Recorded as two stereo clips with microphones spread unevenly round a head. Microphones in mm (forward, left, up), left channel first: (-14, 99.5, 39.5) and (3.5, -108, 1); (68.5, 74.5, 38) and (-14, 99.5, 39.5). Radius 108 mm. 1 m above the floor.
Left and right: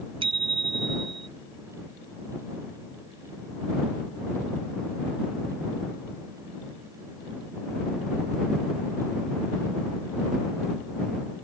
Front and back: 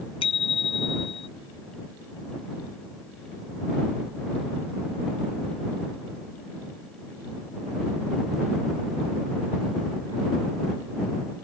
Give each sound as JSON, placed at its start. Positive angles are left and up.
{"t": 0.2, "sound": "a bicycle bell", "azimuth_deg": -15}